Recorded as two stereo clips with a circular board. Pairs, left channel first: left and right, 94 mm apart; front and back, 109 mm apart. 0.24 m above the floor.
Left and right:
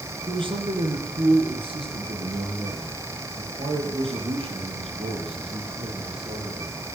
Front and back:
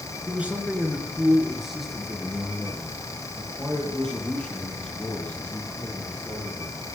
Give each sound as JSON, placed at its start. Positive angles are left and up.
{"t": 0.3, "sound": "a man speaking", "azimuth_deg": -105, "distance_m": 3.0}